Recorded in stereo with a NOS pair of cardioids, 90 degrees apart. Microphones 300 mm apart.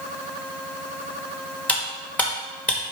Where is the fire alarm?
No fire alarm in this recording.